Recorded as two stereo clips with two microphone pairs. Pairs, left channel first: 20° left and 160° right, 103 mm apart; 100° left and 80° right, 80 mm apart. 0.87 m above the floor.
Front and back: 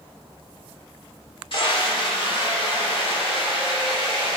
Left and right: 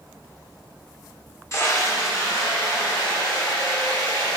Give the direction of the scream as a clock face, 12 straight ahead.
10 o'clock.